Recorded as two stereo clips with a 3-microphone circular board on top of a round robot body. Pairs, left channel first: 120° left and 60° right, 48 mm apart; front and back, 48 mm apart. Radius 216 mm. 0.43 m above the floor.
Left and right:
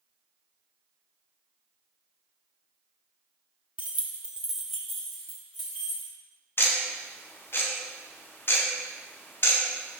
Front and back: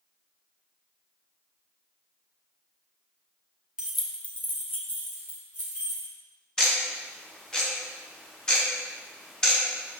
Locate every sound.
3.8 s keys jangling: 110° right, 0.9 m; by 6.1 s 40° left, 3 m
6.6 s ticking: 80° left, 0.6 m